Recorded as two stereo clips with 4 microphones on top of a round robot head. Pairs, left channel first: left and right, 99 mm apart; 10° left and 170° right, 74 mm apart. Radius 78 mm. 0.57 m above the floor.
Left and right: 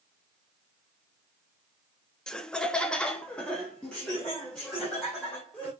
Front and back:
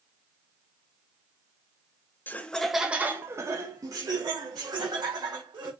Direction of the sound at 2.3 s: 15° left.